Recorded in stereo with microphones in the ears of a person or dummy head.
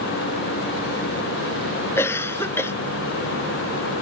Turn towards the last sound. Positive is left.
turn(degrees=10)  # may be behind; listen again after turning